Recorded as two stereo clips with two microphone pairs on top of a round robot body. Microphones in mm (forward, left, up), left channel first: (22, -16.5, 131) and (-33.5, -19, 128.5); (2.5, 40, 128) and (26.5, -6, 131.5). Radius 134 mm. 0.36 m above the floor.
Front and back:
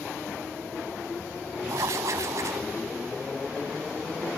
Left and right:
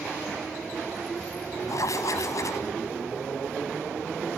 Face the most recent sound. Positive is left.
turn(degrees=145)